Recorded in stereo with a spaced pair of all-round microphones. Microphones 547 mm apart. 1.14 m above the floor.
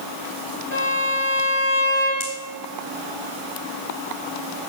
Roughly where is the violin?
Left.